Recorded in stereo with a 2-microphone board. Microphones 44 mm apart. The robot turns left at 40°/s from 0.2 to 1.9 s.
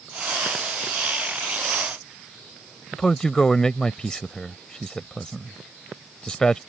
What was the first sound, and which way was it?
A man speaking, 15° left (ahead or behind).